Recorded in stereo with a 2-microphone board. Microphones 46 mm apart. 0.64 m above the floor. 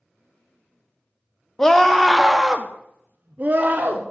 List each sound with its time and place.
1.6 s a scream: 15° left (ahead or behind), 1.0 m; by 4.0 s 40° right (ahead or behind), 1.2 m